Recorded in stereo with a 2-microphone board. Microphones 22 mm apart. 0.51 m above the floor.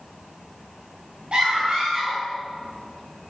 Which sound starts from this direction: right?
A scream, at 1.3 s.